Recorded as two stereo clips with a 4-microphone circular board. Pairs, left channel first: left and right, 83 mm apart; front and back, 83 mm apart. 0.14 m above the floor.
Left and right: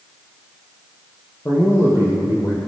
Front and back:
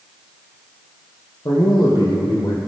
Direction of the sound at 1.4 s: 30° left.